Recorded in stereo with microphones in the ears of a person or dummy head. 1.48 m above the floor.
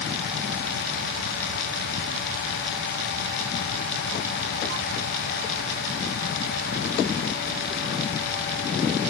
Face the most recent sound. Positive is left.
No sound to turn to.